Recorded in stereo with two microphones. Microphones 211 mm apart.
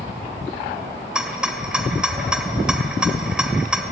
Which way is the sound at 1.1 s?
5° right (ahead or behind).